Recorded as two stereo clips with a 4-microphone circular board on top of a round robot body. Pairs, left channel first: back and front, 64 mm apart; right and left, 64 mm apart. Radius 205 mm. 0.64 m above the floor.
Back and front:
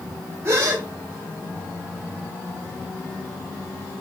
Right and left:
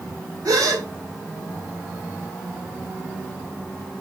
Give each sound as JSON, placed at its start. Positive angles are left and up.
{"t": 0.5, "sound": "a gasp", "azimuth_deg": 55, "distance_m": 1.6}